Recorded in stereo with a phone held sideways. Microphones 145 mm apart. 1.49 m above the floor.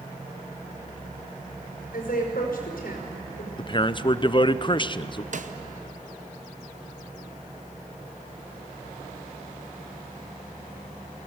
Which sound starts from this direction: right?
A snare drum, at 5.3 s.